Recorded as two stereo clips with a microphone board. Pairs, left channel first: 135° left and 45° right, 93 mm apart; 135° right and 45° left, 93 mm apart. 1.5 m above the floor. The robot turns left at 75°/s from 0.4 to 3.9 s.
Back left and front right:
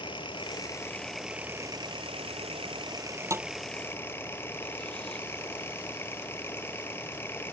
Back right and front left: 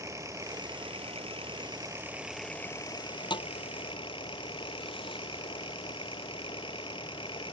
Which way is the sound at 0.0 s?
105° left.